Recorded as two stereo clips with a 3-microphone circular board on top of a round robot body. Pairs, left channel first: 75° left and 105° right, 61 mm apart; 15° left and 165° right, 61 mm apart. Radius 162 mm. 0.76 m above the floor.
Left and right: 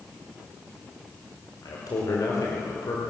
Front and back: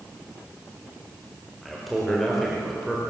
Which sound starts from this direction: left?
A man speaking, at 1.6 s.